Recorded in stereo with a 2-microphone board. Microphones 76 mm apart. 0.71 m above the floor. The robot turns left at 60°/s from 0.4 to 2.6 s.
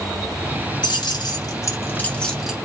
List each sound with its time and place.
0.8 s keys jangling: 70° left (ahead or behind), 1.4 m; by 2.5 s 5° right (ahead or behind), 1.4 m